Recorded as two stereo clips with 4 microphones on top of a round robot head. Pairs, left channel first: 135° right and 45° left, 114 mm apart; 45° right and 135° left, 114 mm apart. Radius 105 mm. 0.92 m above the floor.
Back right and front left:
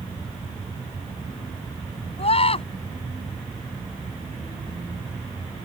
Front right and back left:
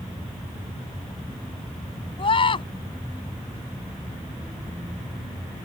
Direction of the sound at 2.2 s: 95° right.